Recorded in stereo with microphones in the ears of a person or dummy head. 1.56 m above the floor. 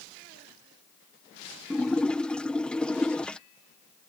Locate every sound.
1.7 s a splash: 5° left (ahead or behind)